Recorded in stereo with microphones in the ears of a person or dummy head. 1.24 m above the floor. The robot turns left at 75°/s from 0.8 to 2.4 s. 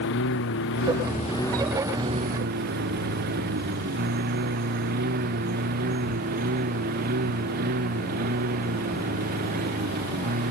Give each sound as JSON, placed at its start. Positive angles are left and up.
{"t": 0.0, "sound": "a lawn mower", "side_deg": 65}